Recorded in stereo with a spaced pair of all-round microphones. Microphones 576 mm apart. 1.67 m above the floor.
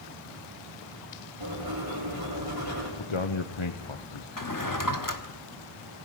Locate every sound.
1.4 s writing: 40° right (ahead or behind), 8 m
3.0 s a man speaking: 55° left (ahead or behind), 1.0 m
4.4 s a drawer: 35° left (ahead or behind), 1.3 m